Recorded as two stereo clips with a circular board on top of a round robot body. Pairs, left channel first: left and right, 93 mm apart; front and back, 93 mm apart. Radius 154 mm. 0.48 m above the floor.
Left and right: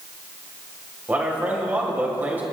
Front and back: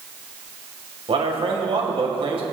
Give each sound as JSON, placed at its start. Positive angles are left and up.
{"t": 1.1, "sound": "a man speaking", "azimuth_deg": -160, "distance_m": 2.5}